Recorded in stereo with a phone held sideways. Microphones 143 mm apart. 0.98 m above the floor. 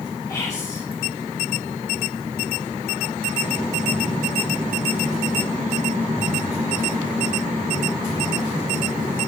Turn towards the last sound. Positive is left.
turn(degrees=25)  # may be behind; listen again after turning